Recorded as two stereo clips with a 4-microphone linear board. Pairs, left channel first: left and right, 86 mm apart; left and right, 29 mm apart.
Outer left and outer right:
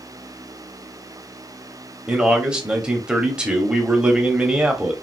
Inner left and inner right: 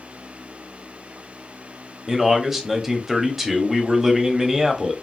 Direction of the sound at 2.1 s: 10° right (ahead or behind).